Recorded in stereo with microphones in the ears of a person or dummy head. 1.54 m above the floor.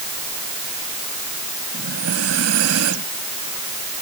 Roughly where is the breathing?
Right.